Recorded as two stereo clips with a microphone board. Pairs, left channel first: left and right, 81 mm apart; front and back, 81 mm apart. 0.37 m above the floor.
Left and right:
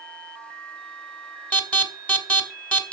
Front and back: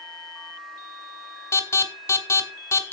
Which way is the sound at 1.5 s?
30° left.